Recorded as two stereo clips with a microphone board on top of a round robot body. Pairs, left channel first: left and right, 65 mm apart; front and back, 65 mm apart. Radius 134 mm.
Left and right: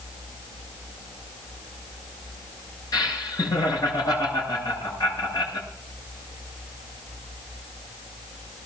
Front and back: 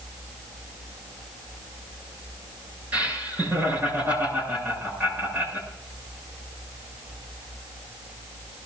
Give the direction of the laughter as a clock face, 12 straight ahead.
8 o'clock.